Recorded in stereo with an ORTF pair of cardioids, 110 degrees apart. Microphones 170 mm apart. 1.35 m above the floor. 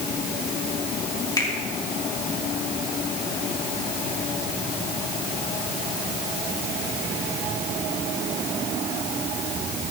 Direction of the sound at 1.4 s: 25° left.